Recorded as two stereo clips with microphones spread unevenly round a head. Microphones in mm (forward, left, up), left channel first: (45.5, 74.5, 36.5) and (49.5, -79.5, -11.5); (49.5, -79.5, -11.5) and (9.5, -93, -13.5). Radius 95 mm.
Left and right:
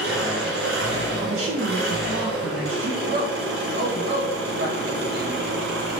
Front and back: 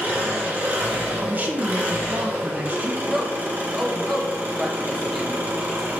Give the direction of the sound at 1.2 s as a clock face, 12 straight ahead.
4 o'clock.